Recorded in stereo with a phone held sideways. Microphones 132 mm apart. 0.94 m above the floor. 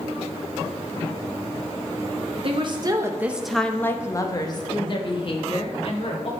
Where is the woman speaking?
50° right (ahead or behind), 0.7 m; by 6.3 s 55° left (ahead or behind), 1.8 m.